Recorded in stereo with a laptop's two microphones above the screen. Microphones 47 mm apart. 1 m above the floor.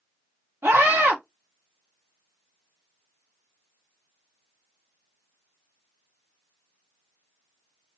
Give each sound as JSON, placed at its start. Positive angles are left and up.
{"t": 0.6, "sound": "a scream", "side_deg": -60, "distance_m": 1.4}